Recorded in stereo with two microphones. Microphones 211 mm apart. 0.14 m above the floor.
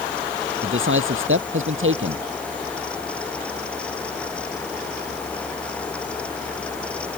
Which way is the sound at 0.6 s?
75° right (ahead or behind).